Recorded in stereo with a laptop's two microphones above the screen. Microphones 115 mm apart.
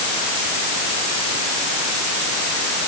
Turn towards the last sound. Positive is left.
No sound to turn to.